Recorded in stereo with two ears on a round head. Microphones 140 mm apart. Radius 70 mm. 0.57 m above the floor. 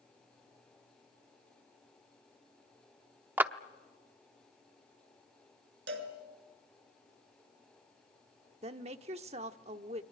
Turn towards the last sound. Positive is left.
turn(degrees=-40)  # may be behind; listen again after turning